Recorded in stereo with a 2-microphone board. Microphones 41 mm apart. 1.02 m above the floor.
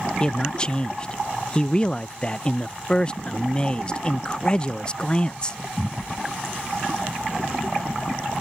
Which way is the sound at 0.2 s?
20° left (ahead or behind).